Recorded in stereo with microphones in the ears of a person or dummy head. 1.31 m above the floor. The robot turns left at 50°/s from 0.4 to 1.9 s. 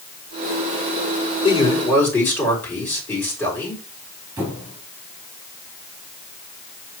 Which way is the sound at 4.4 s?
10° right (ahead or behind).